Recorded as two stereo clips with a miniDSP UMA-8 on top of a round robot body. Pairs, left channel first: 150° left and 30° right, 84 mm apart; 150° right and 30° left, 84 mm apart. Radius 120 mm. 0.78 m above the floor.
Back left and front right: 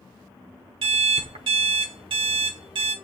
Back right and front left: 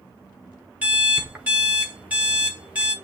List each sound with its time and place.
0.8 s an alarm clock: 45° right, 0.8 m